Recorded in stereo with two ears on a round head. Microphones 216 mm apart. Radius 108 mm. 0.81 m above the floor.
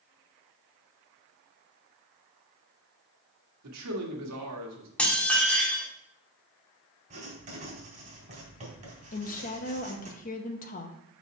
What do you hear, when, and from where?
3.6 s a man speaking: 75° right (ahead or behind), 1.6 m
5.0 s dishes clattering: 5° left (ahead or behind), 1.4 m
7.1 s writing: 30° right (ahead or behind), 2.5 m
9.1 s a woman speaking: 35° left (ahead or behind), 0.7 m